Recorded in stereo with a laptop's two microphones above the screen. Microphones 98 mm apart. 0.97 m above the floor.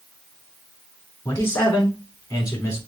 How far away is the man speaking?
About 3.5 m.